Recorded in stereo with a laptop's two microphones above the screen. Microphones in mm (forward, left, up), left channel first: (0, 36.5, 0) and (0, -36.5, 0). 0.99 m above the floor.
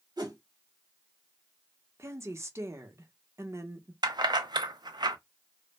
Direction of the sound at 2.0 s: 40° right (ahead or behind).